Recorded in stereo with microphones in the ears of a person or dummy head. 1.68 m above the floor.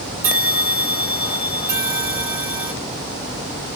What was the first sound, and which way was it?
A bell, 15° right (ahead or behind).